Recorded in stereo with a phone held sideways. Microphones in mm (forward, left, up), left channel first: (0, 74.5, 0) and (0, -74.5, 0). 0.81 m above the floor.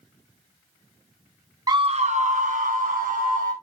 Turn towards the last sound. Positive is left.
turn(degrees=-70)  # may be behind; listen again after turning